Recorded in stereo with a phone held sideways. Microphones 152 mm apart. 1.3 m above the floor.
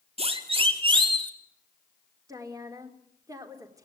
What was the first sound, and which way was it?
A siren, 40° right (ahead or behind).